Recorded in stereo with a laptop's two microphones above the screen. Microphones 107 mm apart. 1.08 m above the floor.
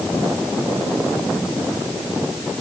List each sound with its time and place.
Only background noise.